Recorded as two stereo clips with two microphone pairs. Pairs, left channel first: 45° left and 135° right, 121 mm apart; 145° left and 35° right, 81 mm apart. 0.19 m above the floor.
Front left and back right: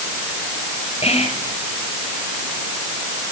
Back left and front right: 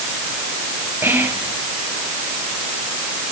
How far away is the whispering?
About 3.5 m.